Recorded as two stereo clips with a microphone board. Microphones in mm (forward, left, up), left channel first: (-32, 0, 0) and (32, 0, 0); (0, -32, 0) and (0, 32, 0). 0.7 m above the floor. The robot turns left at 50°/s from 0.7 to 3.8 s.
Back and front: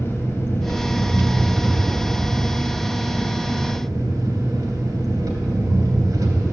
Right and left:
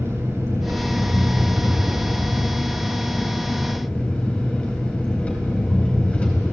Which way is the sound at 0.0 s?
135° left.